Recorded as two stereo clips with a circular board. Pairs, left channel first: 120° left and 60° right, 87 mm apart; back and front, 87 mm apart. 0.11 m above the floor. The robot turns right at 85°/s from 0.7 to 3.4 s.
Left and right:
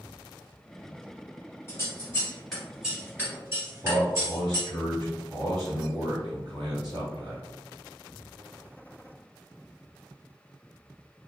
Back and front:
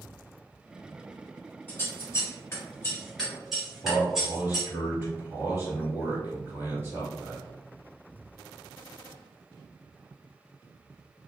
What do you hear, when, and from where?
1.7 s scissors: 125° left, 1.9 m; by 4.7 s 85° right, 1.9 m
3.8 s a man speaking: 55° right, 1.8 m